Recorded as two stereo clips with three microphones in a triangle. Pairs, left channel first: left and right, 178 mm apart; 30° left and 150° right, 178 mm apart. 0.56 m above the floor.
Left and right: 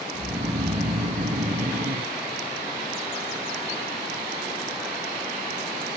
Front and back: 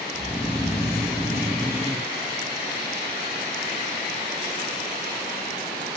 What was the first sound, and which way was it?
Snoring, 45° right.